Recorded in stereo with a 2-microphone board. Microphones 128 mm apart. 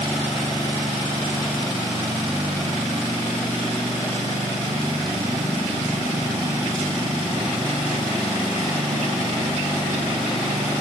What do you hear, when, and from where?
Only background noise.